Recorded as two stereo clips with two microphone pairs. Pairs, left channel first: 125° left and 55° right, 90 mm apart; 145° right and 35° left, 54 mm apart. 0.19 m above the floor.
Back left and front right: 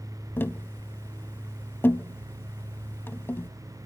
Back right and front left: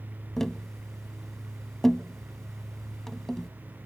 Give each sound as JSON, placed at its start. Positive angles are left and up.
{"t": 0.4, "sound": "tapping", "azimuth_deg": 135, "distance_m": 0.5}